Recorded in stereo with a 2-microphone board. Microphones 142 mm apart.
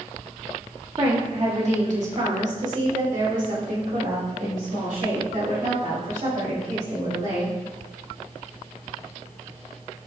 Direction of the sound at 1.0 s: 35° right (ahead or behind).